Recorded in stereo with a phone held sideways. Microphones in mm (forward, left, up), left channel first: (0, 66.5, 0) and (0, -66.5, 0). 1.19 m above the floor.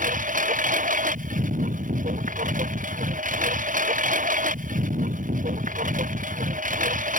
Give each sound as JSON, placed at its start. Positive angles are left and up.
{"t": 0.0, "sound": "a lawn mower", "side_deg": -85}